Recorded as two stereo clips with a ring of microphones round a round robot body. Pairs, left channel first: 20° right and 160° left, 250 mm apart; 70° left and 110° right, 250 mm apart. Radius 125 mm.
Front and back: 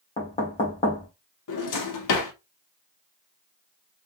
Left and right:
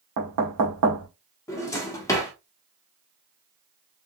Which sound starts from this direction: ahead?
A drawer, at 1.5 s.